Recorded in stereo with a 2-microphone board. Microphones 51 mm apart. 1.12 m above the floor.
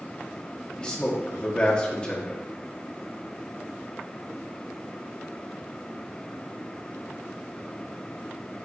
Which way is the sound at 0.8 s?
20° left (ahead or behind).